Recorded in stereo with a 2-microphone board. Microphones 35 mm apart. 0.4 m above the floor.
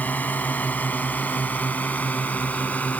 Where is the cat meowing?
No cat meowing in this recording.